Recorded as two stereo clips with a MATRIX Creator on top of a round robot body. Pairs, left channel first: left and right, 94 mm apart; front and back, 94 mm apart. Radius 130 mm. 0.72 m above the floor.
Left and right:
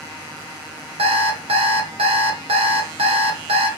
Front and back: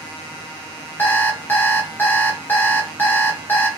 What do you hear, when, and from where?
1.0 s an alarm clock: 75° right, 1.2 m